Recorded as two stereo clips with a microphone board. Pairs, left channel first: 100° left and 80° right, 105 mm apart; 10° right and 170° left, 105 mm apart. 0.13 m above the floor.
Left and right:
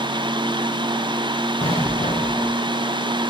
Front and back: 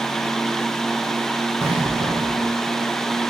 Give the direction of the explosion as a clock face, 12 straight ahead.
8 o'clock.